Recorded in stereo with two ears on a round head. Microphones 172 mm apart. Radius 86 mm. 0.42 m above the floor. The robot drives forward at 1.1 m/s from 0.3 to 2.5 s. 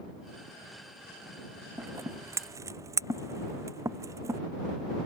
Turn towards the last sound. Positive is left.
turn(degrees=-15)  # may be behind; listen again after turning